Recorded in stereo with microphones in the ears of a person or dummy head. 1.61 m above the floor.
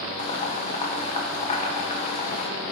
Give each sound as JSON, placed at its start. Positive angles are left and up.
{"t": 0.2, "sound": "boiling", "side_deg": 30, "distance_m": 0.9}